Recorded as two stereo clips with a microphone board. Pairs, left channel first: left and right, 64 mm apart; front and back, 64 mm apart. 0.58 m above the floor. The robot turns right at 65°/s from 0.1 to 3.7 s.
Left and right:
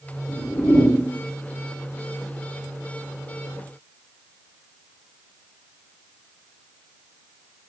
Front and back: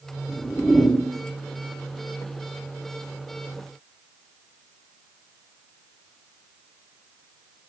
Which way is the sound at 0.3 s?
70° left.